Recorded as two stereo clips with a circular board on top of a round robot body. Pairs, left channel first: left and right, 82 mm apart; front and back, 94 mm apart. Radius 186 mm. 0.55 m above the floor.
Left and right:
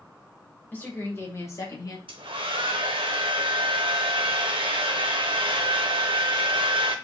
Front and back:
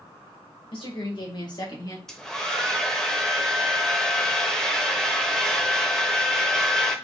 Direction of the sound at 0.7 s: 20° left.